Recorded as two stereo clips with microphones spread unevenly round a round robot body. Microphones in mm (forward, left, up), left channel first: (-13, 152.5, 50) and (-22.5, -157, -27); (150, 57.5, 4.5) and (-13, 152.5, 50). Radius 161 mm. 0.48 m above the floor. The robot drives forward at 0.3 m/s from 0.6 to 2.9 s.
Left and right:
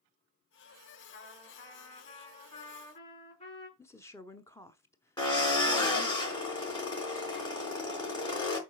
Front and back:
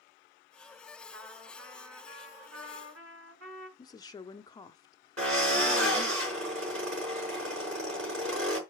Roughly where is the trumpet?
Behind left.